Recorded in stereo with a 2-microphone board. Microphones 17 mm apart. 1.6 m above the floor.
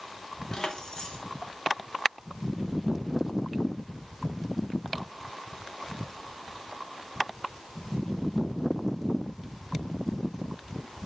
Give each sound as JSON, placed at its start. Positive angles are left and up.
{"t": 0.5, "sound": "keys jangling", "side_deg": 40, "distance_m": 1.1}